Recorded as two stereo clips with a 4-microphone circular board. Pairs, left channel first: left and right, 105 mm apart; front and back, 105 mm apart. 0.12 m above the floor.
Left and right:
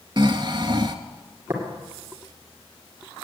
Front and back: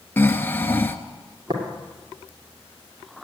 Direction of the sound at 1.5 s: 150° right.